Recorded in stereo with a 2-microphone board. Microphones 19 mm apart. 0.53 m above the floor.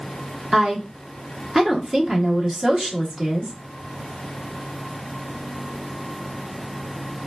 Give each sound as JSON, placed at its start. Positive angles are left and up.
{"t": 0.5, "sound": "a woman speaking", "side_deg": -25, "distance_m": 1.0}